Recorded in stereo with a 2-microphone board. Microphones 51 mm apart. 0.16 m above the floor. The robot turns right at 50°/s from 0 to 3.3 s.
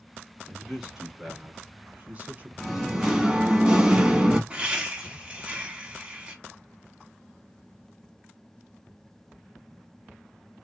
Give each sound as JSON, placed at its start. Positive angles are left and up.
{"t": 0.5, "sound": "a man speaking", "azimuth_deg": 170, "distance_m": 1.1}
{"t": 2.6, "sound": "singing", "side_deg": 0, "distance_m": 0.7}
{"t": 4.5, "sound": "laughter", "side_deg": -20, "distance_m": 1.1}